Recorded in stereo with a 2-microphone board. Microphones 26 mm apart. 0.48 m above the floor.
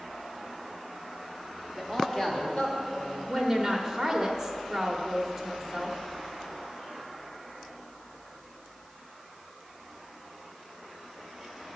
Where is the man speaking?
5° left (ahead or behind), 1.4 m; by 3.2 s 45° left (ahead or behind), 2.5 m.